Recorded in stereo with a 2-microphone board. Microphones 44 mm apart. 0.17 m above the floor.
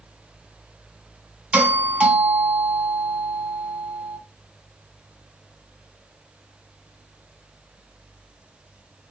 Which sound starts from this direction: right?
A doorbell, at 1.5 s.